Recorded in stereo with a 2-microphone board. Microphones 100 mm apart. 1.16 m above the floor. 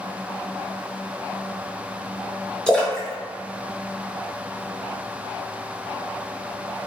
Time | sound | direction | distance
2.7 | a splash | 10° left (ahead or behind) | 0.9 m